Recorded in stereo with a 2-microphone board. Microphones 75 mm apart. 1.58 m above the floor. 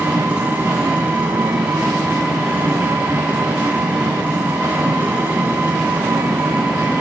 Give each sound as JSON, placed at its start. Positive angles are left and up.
{"t": 0.0, "sound": "an engine running", "side_deg": -20, "distance_m": 6.0}